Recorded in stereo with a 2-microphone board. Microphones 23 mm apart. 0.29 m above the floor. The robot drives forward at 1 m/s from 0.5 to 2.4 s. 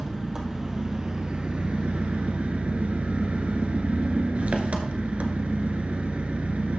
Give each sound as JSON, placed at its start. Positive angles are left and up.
{"t": 0.0, "sound": "an engine running", "side_deg": -30, "distance_m": 1.8}